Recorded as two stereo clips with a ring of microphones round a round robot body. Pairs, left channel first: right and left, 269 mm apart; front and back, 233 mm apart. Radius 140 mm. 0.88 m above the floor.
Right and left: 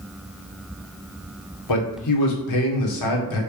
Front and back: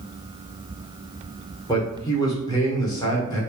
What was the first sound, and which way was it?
A man speaking, 75° right.